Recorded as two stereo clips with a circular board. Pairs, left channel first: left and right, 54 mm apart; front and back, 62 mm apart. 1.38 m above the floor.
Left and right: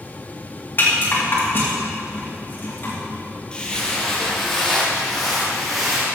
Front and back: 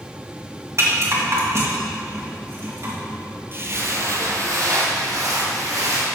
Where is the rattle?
140° left, 2.5 m.